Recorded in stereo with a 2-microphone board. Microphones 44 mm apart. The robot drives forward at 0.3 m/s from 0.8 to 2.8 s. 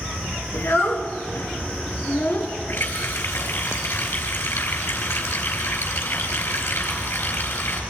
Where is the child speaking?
70° left (ahead or behind), 2.5 m; by 2.5 s 60° left (ahead or behind), 2.5 m.